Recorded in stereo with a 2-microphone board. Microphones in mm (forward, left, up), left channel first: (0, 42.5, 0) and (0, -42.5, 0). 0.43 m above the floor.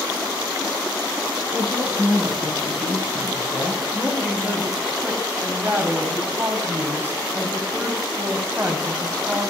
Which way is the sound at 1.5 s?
10° right (ahead or behind).